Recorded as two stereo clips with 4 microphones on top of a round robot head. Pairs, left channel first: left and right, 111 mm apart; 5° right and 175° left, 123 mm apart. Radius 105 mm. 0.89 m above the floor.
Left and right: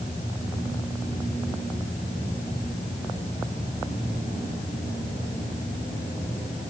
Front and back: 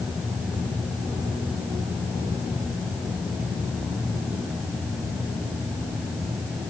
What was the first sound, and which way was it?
Only background noise.